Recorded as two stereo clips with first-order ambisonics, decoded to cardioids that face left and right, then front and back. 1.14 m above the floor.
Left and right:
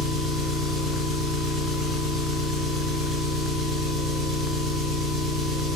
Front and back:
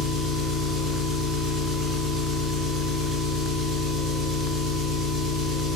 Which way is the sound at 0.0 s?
35° right.